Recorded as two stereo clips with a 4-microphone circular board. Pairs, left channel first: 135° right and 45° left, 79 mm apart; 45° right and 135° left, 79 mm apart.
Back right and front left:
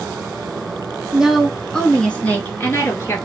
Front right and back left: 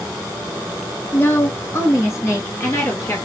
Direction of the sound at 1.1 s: 25° right.